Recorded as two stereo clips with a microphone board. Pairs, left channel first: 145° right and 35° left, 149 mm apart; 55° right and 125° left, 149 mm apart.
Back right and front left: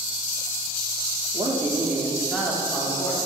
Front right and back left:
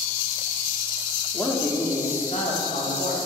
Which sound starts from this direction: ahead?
A man speaking, at 1.3 s.